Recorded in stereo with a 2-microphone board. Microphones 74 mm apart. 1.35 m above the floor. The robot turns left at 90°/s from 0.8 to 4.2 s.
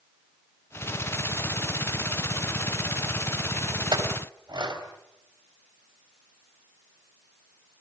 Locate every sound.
3.9 s a clink: 70° right (ahead or behind), 4 m; by 4.8 s 75° right (ahead or behind), 4 m